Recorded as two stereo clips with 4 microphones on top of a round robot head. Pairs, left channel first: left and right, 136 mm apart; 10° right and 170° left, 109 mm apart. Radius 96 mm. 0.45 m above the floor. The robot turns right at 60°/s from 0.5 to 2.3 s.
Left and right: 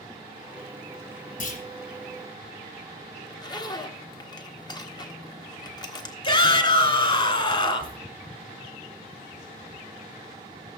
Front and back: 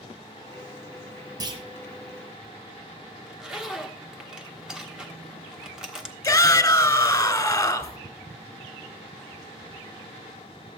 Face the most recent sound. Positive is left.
turn(degrees=45)